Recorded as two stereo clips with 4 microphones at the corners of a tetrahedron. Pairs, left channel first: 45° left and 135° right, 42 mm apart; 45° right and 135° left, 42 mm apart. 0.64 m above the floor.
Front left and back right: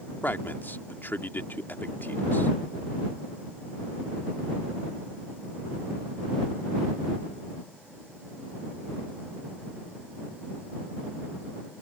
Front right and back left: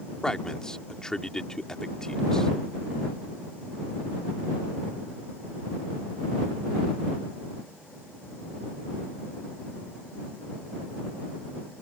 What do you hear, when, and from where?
0.2 s a man speaking: 30° left